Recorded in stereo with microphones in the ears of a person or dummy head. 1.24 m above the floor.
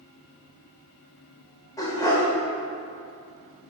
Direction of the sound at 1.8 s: 20° left (ahead or behind).